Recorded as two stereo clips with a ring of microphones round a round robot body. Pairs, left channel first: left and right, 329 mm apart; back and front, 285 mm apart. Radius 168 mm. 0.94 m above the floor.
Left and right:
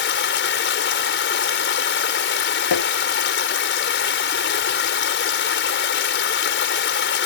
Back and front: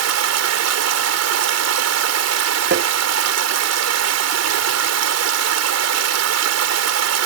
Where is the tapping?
50° left.